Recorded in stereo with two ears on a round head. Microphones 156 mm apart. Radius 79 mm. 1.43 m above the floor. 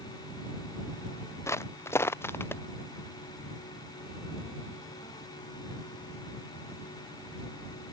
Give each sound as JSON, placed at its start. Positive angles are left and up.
{"t": 1.5, "sound": "footsteps", "side_deg": 20}